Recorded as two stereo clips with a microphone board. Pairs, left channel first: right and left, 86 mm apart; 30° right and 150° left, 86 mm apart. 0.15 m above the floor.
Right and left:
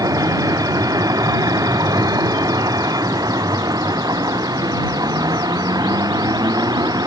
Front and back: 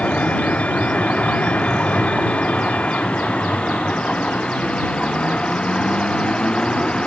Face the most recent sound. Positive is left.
turn(degrees=50)